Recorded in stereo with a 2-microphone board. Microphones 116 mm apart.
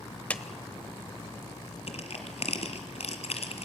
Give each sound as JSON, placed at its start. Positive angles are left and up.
{"t": 0.3, "sound": "a clap", "side_deg": 10, "distance_m": 0.9}
{"t": 1.9, "sound": "crushing", "side_deg": 65, "distance_m": 2.0}